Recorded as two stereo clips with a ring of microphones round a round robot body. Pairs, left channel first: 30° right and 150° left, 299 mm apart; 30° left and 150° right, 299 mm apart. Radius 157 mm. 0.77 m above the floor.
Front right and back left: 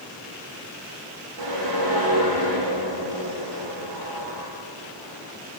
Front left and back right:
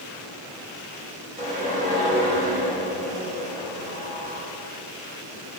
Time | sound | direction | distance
1.4 | a whoosh | 140° left | 9.5 m